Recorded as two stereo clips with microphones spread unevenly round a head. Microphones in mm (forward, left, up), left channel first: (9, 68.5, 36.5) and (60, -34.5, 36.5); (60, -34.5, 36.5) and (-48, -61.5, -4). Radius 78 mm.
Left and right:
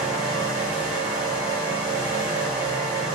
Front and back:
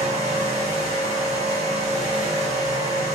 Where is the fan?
130° right, 1.0 m.